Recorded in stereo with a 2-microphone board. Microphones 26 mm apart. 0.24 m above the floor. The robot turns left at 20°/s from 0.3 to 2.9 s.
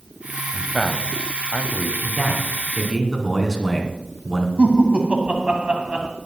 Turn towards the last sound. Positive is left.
turn(degrees=-40)  # may be behind; listen again after turning